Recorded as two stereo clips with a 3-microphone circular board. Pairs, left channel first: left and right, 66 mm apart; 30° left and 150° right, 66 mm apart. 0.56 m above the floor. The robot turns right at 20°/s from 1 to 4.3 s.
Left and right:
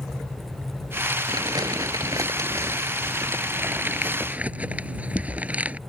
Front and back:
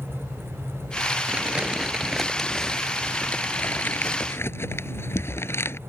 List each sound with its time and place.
1.3 s crumpling: 80° right; by 5.8 s 20° right